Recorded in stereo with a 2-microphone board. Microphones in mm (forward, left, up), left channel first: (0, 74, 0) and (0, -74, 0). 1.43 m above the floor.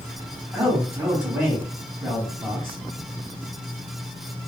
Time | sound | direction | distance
0.5 | a man speaking | 15° right (ahead or behind) | 1.3 m